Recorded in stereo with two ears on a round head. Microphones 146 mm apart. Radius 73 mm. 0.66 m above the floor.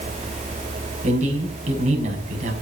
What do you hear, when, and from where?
1.0 s a man speaking: 45° right (ahead or behind), 5 m